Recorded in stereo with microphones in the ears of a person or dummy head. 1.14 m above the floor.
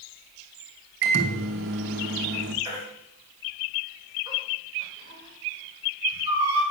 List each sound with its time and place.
1.0 s a microwave: 50° right (ahead or behind), 1.1 m
2.6 s a baby crying: 25° right (ahead or behind), 3 m